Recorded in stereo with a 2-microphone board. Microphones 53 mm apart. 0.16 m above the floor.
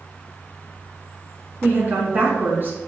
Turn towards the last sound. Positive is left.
turn(degrees=-40)  # may be behind; listen again after turning